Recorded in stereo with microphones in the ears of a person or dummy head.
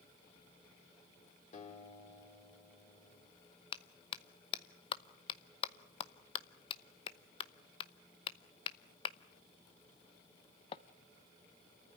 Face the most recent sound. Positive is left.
turn(degrees=30)  # may be behind; listen again after turning